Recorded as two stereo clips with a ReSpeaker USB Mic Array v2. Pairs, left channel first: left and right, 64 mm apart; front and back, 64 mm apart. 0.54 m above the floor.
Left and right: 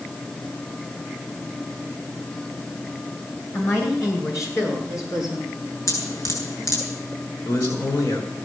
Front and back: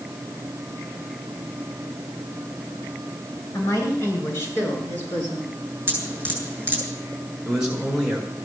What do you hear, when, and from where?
3.5 s a woman speaking: 45° left, 7.5 m; by 5.5 s 65° left, 8 m
5.9 s dripping: 115° left, 7.5 m
7.5 s a man speaking: 100° left, 7 m